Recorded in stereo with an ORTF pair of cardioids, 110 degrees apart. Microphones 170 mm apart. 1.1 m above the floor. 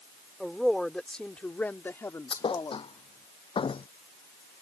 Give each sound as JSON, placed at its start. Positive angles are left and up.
{"t": 0.4, "sound": "a woman speaking", "azimuth_deg": 0}
{"t": 2.3, "sound": "a thud", "azimuth_deg": 30}